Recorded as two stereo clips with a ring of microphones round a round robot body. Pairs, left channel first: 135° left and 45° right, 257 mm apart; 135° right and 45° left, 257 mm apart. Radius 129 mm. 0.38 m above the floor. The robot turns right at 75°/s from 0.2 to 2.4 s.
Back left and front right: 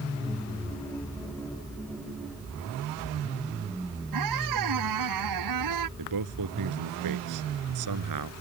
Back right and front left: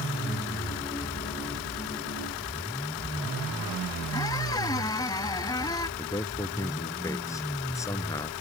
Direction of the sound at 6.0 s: 55° right.